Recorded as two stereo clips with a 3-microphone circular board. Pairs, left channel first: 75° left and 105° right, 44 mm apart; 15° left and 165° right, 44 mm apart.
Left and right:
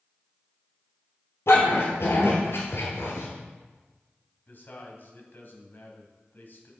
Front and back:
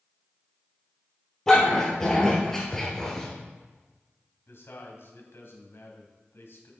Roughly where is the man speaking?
Ahead left.